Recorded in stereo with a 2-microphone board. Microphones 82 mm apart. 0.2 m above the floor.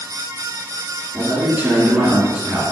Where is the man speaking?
25° right (ahead or behind), 2.5 m.